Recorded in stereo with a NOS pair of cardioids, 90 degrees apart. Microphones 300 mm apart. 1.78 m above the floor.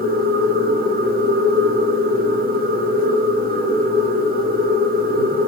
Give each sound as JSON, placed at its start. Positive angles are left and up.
{"t": 0.0, "sound": "a machine running", "azimuth_deg": -30, "distance_m": 0.9}